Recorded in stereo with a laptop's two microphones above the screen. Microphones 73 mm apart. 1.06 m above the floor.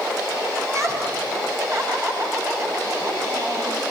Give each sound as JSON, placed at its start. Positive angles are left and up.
{"t": 0.6, "sound": "laughter", "side_deg": -40, "distance_m": 7.5}